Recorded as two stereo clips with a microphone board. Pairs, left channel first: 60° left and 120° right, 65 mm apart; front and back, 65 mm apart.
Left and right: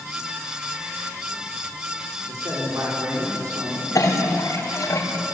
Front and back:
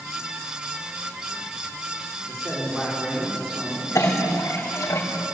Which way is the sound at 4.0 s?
30° left.